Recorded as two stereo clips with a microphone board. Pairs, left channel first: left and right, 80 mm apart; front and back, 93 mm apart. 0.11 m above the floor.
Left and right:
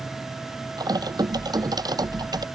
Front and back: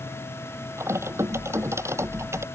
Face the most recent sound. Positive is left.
turn(degrees=-120)